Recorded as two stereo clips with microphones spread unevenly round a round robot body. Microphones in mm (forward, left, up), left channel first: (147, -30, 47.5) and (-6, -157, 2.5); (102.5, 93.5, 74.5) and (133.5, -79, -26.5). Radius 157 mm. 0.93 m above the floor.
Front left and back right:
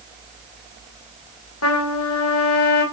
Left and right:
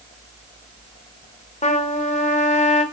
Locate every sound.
1.6 s a trumpet: 50° left, 2.5 m